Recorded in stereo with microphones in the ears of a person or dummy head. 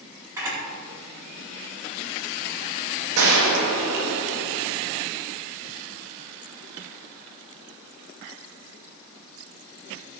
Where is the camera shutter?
15° right (ahead or behind), 4.5 m.